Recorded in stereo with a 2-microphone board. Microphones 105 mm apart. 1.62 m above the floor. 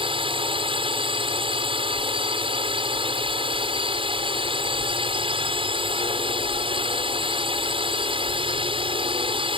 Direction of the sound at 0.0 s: 55° right (ahead or behind).